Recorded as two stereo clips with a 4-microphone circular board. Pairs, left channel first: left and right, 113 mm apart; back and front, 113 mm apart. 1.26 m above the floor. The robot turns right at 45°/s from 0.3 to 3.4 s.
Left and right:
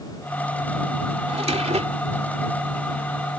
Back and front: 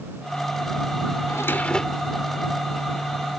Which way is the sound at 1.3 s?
120° right.